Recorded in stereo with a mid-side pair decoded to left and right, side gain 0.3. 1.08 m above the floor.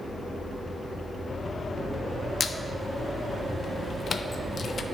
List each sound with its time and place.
2.4 s a squeak: 60° left, 0.5 m